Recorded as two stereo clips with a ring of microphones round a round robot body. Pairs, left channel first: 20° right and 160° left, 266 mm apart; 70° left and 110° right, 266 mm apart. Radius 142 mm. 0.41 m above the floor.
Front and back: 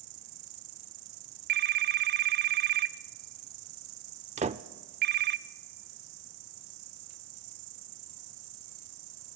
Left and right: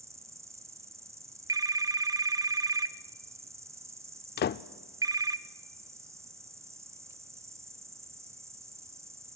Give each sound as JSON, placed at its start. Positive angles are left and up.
{"t": 0.0, "sound": "an insect", "azimuth_deg": 170, "distance_m": 0.9}
{"t": 1.5, "sound": "a phone ringing", "azimuth_deg": 180, "distance_m": 0.7}
{"t": 4.4, "sound": "a door slam", "azimuth_deg": 105, "distance_m": 0.5}